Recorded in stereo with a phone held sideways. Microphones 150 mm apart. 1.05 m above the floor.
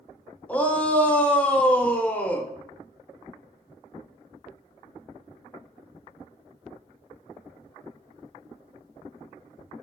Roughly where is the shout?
Centre.